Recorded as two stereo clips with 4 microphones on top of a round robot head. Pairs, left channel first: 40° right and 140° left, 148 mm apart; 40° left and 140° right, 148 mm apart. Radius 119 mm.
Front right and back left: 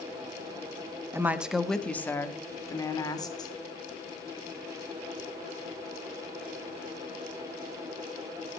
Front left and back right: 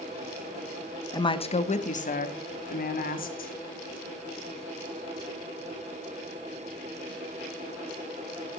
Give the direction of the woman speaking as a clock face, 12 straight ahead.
9 o'clock.